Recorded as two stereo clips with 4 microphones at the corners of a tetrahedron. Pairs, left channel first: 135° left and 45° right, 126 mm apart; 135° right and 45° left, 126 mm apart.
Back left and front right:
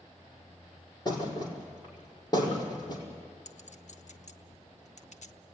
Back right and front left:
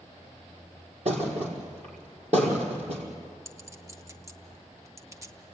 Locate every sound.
1.1 s a thud: 75° left, 5 m
3.5 s a clink: 110° left, 1.0 m